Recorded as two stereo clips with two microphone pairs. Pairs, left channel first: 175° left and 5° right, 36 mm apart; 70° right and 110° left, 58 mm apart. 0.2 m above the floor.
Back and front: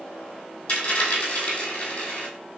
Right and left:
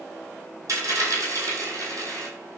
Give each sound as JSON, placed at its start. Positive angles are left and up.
{"t": 0.7, "sound": "a dropped coin", "azimuth_deg": 135, "distance_m": 1.8}